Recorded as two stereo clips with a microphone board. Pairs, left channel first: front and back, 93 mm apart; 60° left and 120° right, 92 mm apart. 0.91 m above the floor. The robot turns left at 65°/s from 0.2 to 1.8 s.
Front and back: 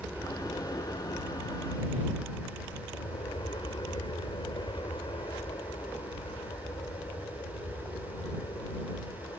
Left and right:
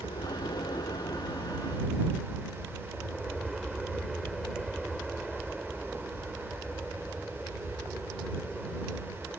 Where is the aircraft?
75° left; by 9.4 s 30° right.